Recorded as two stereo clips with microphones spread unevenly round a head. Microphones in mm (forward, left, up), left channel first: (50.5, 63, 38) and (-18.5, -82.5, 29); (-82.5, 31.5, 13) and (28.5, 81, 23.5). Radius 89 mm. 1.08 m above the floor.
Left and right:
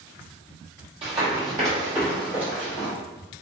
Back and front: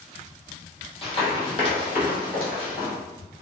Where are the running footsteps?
165° right, 1.3 m; by 2.9 s 160° left, 2.5 m.